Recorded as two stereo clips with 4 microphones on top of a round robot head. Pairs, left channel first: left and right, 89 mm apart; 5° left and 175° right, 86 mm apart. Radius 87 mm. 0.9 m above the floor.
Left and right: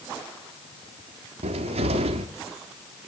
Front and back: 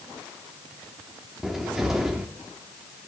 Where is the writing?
I don't hear writing.